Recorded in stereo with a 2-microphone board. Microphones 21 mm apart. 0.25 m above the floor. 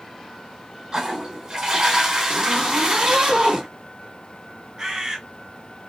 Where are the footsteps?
No footsteps in this recording.